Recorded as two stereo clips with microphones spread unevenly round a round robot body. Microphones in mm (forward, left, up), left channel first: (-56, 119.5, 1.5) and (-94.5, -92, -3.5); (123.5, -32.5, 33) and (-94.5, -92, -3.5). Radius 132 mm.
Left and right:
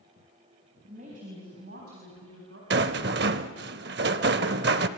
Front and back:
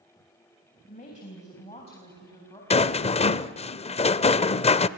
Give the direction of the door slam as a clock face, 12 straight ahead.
No door slam in this recording.